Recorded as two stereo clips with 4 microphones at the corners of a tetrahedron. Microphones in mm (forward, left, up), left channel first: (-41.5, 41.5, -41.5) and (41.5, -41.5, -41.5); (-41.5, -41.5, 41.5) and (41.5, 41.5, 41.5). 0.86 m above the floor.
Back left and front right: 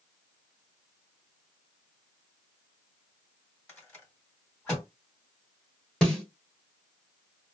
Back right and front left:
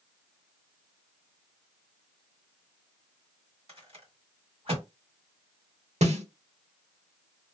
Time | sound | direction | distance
3.7 | a rattle | 65° left | 1.9 m
6.0 | a snare drum | 50° left | 1.2 m